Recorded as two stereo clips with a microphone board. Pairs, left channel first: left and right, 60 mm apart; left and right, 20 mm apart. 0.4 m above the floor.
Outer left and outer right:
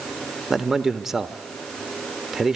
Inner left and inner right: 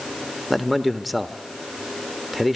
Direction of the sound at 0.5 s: 5° right (ahead or behind).